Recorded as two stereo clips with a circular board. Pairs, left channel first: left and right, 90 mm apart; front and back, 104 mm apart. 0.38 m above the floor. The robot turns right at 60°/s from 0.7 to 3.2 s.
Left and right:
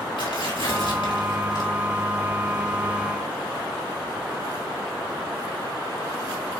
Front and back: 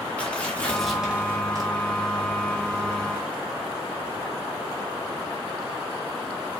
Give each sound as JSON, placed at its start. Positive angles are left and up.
{"t": 0.2, "sound": "tearing paper", "azimuth_deg": 80, "distance_m": 3.5}